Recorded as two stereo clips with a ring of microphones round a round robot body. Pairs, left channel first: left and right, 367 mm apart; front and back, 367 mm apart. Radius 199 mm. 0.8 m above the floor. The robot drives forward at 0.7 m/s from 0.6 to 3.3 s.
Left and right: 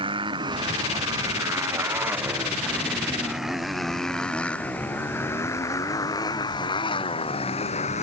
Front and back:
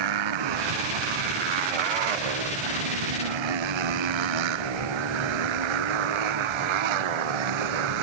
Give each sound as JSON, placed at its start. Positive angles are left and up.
{"t": 0.0, "sound": "a motorcycle", "azimuth_deg": -170}